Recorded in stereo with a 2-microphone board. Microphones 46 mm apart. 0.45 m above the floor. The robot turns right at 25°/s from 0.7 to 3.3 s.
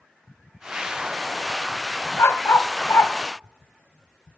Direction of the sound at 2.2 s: 80° left.